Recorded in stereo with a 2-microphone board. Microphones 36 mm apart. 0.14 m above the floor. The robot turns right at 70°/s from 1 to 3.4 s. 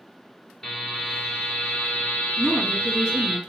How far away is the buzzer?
About 1.7 m.